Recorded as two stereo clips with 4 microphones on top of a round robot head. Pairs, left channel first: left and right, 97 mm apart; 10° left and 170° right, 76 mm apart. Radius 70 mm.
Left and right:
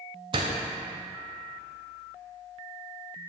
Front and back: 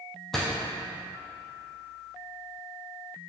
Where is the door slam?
80° right, 0.6 m.